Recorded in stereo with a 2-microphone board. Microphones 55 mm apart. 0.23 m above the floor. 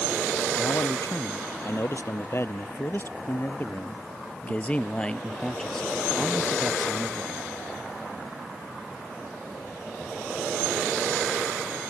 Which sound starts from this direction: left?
A man speaking, at 0.6 s.